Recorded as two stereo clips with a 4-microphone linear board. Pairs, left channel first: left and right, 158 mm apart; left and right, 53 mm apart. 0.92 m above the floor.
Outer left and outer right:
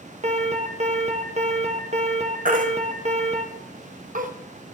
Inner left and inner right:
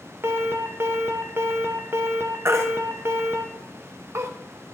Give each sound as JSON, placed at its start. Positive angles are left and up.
{"t": 0.2, "sound": "an alarm", "side_deg": -45, "distance_m": 0.8}
{"t": 2.5, "sound": "a baby crying", "side_deg": -55, "distance_m": 0.6}